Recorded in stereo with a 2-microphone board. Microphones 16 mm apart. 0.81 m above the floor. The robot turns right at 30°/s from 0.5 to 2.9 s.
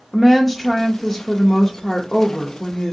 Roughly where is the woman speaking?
Ahead left.